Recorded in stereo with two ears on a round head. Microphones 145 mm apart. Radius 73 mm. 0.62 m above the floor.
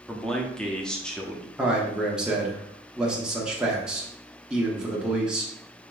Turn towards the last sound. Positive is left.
turn(degrees=-5)  # may be behind; listen again after turning